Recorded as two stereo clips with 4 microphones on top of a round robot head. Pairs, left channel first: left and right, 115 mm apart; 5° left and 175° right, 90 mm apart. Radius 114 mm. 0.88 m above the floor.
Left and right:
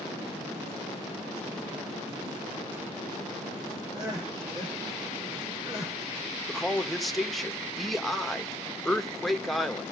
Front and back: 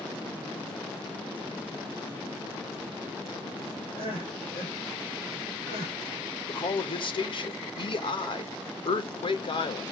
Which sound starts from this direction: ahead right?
Crying, at 3.9 s.